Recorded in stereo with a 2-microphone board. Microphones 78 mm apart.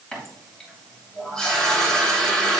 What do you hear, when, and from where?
0.1 s a running tap: 10° left (ahead or behind), 3 m